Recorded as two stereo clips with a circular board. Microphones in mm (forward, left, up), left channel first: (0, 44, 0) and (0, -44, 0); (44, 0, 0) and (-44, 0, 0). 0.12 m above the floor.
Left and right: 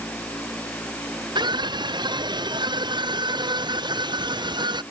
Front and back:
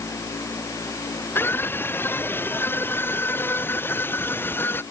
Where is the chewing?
No chewing in this recording.